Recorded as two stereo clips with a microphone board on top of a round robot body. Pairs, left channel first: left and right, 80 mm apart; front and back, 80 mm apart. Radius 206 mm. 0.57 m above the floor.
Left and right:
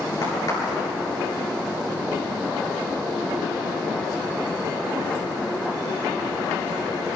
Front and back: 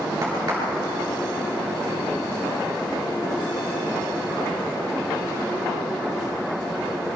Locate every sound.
0.2 s a crack: 125° left, 9.5 m